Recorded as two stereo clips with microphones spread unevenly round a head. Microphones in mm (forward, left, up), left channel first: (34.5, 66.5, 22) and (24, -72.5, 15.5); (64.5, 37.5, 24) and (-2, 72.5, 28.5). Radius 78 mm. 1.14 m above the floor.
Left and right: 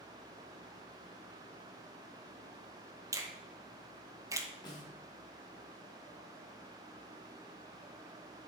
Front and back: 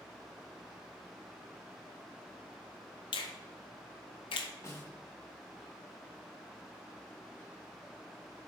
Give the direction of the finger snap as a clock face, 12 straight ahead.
1 o'clock.